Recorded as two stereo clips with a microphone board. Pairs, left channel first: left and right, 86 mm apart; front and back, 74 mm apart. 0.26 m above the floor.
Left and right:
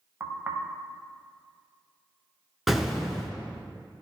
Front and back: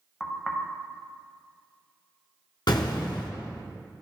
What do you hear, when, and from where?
0.2 s knocking: 70° right, 0.6 m
2.7 s an explosion: 5° right, 0.8 m